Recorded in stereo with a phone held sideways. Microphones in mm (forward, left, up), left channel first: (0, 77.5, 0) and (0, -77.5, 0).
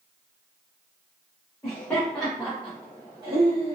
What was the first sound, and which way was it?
Laughter, 20° left (ahead or behind).